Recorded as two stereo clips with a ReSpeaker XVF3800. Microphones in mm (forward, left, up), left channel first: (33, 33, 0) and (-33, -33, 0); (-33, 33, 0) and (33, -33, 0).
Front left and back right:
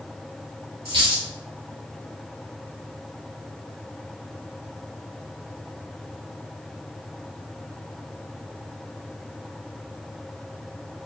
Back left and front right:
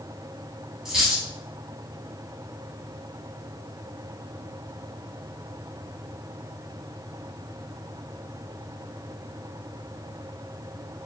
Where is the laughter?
No laughter in this recording.